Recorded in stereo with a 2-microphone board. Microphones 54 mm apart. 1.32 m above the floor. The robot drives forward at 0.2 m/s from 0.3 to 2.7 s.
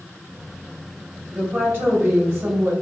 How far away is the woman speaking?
About 1.3 m.